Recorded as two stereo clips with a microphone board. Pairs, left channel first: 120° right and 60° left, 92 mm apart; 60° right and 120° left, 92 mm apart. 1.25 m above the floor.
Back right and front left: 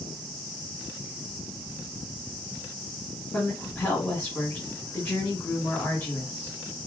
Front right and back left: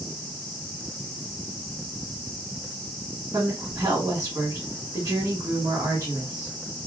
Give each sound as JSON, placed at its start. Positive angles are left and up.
{"t": 3.3, "sound": "a woman speaking", "azimuth_deg": 175, "distance_m": 2.0}